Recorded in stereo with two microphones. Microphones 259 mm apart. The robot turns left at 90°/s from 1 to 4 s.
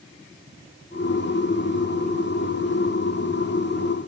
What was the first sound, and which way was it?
Only background noise.